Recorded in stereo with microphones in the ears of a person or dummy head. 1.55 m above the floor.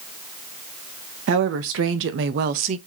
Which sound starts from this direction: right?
A woman speaking, at 1.3 s.